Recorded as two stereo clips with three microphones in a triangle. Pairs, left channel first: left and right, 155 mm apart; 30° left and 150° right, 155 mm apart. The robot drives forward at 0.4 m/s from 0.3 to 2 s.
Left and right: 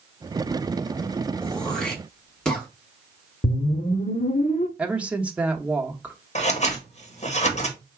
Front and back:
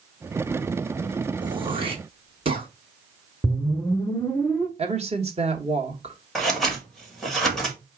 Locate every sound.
1.4 s throat clearing: 175° left, 1.0 m
3.4 s a whoosh: 110° left, 0.7 m
4.8 s a woman speaking: 170° right, 1.2 m
6.3 s scissors: 120° left, 1.3 m